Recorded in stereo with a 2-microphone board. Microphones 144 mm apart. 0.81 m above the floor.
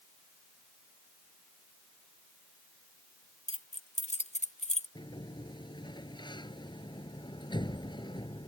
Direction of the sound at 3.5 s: 55° left (ahead or behind).